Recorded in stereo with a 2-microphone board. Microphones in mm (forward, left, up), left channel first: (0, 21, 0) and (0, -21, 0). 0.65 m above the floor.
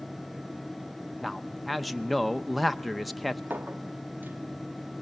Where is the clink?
50° right (ahead or behind), 0.8 m.